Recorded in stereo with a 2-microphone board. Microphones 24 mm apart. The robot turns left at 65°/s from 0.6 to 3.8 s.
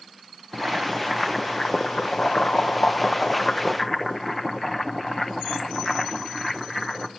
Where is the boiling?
145° right, 1.0 m; by 7.1 s 10° left, 1.0 m.